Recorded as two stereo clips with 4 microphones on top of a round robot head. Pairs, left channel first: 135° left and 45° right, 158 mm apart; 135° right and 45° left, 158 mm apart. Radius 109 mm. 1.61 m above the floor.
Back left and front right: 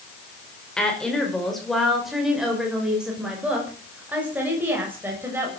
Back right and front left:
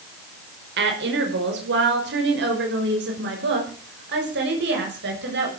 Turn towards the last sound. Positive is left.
turn(degrees=35)